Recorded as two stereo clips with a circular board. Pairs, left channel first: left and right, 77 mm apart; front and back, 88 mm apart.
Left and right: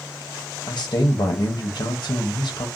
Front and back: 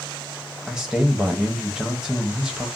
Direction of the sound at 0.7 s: 95° left.